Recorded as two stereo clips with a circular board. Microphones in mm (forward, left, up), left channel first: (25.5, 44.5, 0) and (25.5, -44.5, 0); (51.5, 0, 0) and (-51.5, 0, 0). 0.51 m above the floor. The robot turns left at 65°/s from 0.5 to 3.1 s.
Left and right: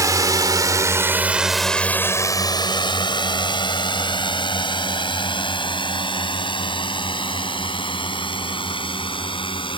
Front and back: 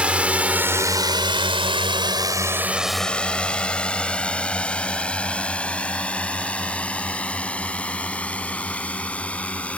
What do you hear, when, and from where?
0.0 s a drone: 105° right; by 9.8 s 75° left